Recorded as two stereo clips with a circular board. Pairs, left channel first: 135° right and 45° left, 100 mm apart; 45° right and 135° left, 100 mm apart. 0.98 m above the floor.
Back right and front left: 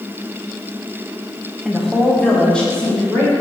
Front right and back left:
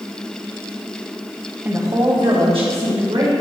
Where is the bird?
No bird in this recording.